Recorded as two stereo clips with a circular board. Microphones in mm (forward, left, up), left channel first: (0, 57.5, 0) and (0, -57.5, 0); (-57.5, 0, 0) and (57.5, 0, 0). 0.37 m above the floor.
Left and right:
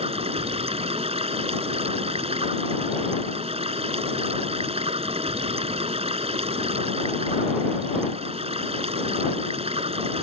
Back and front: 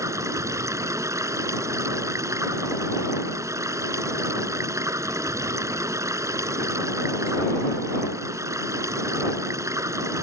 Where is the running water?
65° right.